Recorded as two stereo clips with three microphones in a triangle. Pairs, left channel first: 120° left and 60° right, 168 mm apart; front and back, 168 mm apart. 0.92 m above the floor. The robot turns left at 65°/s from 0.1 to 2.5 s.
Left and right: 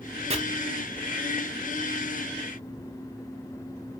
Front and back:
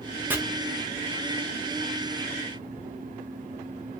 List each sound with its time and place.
0.3 s chopping: 100° right, 0.8 m; by 0.4 s 105° right, 0.8 m